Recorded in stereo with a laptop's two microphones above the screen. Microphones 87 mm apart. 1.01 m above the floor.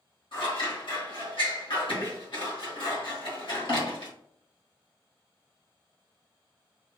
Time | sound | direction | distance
0.3 | scissors | 65° left (ahead or behind) | 1.7 m